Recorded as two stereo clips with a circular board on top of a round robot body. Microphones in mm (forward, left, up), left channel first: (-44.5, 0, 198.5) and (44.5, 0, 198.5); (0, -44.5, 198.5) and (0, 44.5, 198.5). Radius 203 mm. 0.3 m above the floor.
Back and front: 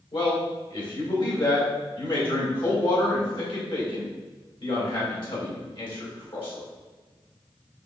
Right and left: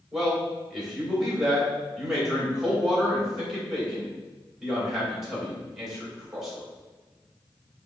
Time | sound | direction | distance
0.1 | a man speaking | 175° left | 3 m